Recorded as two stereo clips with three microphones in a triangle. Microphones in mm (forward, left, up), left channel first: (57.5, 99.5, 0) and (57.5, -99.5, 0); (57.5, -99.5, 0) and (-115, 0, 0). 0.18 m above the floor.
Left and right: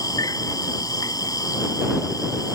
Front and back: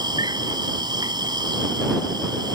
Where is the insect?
125° left.